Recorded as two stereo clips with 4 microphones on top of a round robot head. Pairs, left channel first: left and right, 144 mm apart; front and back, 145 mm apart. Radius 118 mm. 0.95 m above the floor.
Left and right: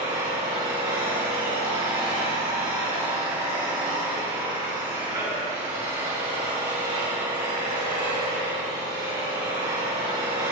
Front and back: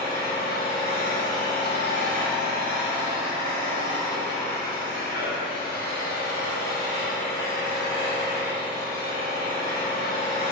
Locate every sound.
0.0 s an engine running: 25° right, 4 m